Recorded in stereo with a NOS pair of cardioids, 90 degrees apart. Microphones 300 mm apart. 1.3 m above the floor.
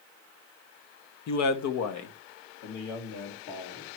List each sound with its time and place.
1.3 s a man speaking: 65° left, 0.8 m